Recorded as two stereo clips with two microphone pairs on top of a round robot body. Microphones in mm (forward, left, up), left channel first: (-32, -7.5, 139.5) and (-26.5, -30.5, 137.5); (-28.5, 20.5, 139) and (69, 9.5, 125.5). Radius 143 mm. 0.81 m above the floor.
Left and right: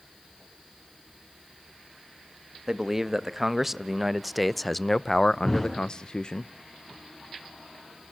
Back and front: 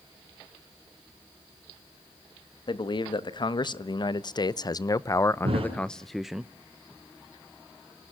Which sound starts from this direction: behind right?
A man speaking, at 2.7 s.